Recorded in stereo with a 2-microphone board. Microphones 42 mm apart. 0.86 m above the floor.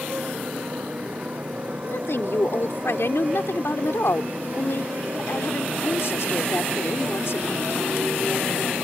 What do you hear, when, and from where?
0.0 s a motorcycle: 35° right (ahead or behind); by 8.8 s 50° right (ahead or behind)
1.8 s a woman speaking: 80° left